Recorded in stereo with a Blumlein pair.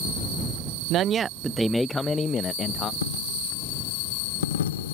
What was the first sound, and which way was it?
A man speaking, 35° right.